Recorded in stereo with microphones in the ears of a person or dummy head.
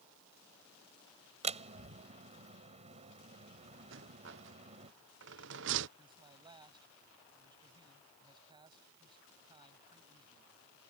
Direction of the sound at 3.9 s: 65° right (ahead or behind).